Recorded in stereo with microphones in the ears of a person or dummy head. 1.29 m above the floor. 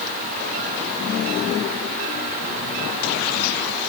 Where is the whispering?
No whispering in this recording.